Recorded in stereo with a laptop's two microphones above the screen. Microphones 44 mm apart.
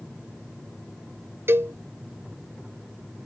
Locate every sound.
1.5 s a cowbell: 70° right (ahead or behind)